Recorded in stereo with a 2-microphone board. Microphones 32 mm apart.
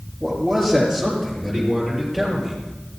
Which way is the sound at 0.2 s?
10° left (ahead or behind).